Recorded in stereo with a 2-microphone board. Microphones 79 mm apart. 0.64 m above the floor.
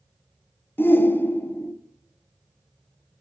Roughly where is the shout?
Left.